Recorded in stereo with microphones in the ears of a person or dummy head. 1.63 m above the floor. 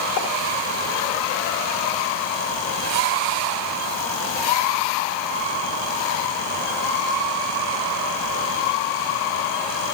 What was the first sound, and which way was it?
A pop, 75° left (ahead or behind).